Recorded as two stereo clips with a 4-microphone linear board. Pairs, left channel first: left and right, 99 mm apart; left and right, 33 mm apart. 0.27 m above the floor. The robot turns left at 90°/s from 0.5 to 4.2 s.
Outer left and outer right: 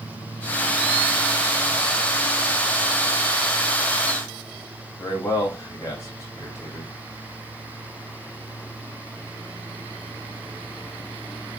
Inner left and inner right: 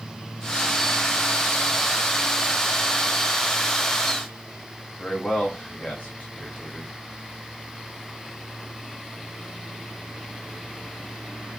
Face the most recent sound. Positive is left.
turn(degrees=30)  # may be behind; listen again after turning